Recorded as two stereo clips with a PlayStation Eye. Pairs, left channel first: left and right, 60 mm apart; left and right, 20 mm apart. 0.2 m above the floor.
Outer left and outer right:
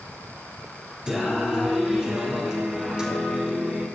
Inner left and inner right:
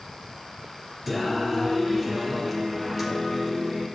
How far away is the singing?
About 2.5 m.